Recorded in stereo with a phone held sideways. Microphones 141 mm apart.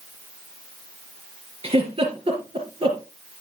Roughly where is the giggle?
Right.